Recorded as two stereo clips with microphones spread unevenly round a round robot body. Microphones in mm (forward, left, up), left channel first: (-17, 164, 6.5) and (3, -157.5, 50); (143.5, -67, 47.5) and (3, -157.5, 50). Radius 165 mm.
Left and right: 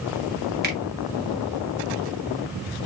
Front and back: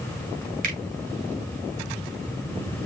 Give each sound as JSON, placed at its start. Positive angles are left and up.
{"t": 0.6, "sound": "a finger snap", "azimuth_deg": -145, "distance_m": 1.8}